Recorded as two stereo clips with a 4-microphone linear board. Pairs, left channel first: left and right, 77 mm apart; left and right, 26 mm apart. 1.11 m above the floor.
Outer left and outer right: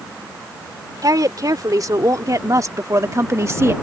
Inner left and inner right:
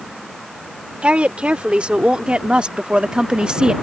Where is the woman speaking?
60° right (ahead or behind); by 3.7 s 40° right (ahead or behind).